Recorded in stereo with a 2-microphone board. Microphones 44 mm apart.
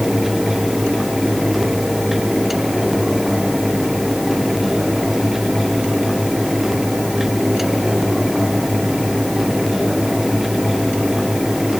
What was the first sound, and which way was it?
Only background noise.